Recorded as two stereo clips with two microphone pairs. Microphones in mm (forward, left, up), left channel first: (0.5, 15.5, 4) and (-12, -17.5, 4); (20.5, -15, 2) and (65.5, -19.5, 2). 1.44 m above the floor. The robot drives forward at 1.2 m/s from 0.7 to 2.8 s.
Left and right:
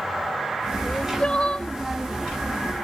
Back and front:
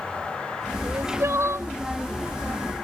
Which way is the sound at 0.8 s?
5° left.